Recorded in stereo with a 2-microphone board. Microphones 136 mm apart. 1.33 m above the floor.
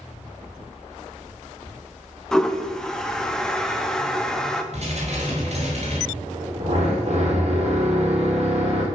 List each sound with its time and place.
2.3 s a toilet flushing: 5° left (ahead or behind), 0.8 m
4.7 s dishes clattering: 55° right (ahead or behind), 4 m
6.1 s a drill: 55° right (ahead or behind), 4 m